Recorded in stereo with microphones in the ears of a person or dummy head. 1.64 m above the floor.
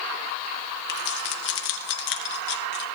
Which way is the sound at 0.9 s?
60° left (ahead or behind).